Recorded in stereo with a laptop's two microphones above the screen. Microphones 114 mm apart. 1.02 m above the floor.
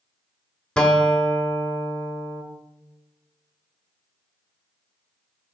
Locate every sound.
0.8 s a guitar: 5° left (ahead or behind), 0.7 m